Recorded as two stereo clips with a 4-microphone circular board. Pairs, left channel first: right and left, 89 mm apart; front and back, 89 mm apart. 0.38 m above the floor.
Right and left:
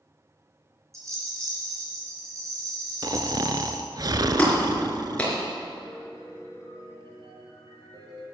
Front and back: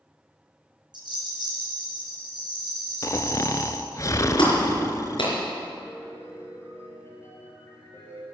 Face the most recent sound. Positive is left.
turn(degrees=60)